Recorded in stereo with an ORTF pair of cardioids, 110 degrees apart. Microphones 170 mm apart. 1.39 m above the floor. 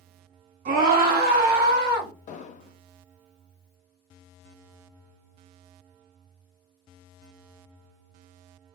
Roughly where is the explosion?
Ahead left.